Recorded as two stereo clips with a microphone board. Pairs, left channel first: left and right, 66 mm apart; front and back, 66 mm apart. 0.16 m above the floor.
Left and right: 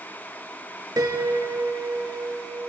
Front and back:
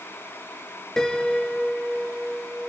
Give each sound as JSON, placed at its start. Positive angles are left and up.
{"t": 1.0, "sound": "a piano", "azimuth_deg": -80, "distance_m": 0.5}